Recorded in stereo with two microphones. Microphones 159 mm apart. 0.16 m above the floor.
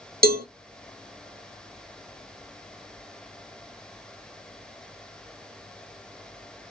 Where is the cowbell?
80° right, 0.8 m.